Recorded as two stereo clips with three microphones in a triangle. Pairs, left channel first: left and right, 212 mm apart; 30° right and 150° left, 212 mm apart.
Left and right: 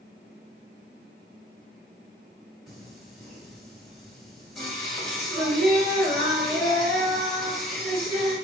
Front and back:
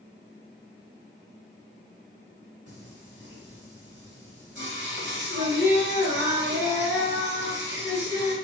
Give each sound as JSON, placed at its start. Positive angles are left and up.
{"t": 2.7, "sound": "singing", "azimuth_deg": 180, "distance_m": 1.9}